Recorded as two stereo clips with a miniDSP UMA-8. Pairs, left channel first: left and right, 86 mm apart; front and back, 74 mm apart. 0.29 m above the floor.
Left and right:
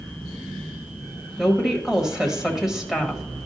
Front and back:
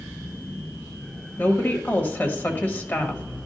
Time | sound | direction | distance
1.4 | a woman speaking | 15° right | 1.3 m